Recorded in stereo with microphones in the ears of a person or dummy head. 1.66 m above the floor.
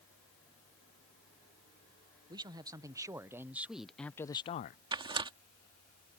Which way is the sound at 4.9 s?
20° right (ahead or behind).